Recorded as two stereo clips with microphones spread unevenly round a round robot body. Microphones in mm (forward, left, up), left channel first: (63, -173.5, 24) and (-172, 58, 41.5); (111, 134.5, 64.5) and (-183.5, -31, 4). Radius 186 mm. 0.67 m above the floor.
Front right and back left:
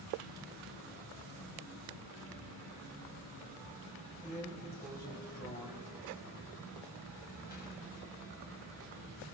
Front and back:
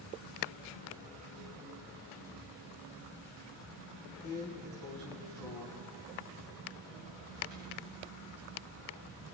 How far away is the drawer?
About 2 m.